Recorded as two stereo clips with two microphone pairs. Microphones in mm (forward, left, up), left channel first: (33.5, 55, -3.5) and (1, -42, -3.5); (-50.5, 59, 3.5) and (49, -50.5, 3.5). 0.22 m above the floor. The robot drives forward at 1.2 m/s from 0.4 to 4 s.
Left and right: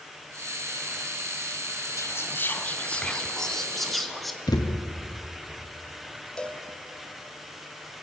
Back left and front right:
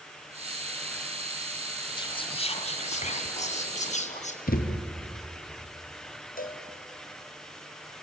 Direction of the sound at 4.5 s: 120° left.